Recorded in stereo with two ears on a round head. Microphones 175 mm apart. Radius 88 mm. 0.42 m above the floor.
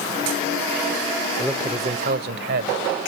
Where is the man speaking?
Centre (ahead or behind), 0.8 m; by 2.8 s 65° right (ahead or behind), 1.8 m.